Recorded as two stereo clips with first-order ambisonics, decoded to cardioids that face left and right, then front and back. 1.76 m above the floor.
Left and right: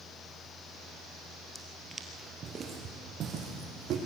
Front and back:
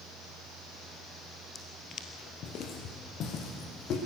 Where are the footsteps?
Straight ahead, 1.8 m; by 4.0 s 45° right, 4.5 m.